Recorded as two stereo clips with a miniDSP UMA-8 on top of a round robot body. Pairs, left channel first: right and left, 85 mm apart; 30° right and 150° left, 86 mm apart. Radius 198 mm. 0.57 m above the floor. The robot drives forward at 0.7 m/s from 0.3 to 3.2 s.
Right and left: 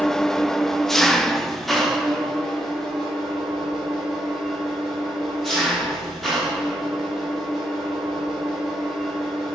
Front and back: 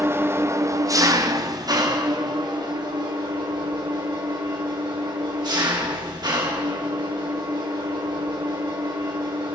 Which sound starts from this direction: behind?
An engine running, at 0.0 s.